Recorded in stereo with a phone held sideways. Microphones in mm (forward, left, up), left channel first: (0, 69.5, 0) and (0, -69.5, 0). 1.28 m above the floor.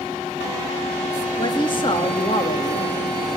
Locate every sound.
1.4 s a woman speaking: 35° left (ahead or behind), 2.5 m